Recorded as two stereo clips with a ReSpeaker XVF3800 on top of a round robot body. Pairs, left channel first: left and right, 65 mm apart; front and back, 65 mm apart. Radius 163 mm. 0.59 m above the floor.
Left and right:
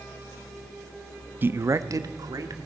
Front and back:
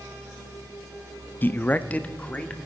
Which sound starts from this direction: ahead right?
A man speaking, at 1.4 s.